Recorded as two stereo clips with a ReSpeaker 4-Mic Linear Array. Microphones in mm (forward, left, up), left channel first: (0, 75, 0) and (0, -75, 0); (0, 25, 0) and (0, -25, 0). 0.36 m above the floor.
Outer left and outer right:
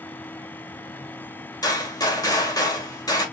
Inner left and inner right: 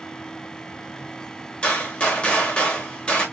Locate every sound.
1.6 s a gunshot: 25° left (ahead or behind), 1.8 m